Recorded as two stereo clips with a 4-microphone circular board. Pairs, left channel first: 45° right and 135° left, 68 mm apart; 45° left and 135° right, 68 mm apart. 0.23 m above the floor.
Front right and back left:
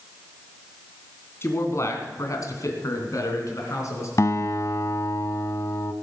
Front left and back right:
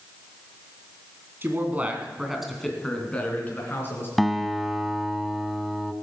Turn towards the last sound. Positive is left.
turn(degrees=-45)